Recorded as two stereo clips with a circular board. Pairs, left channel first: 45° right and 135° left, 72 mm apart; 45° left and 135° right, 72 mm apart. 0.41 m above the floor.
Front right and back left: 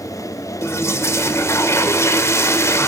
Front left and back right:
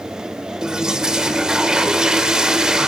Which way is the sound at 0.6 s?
60° right.